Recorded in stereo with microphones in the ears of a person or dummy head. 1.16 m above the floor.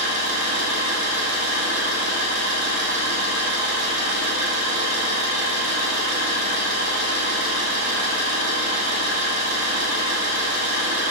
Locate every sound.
0.0 s an engine running: 40° right (ahead or behind), 0.7 m